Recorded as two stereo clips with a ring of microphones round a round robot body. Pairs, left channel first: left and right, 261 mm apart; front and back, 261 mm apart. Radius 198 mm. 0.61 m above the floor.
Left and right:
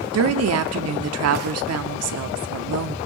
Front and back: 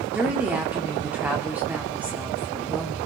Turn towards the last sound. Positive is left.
turn(degrees=-95)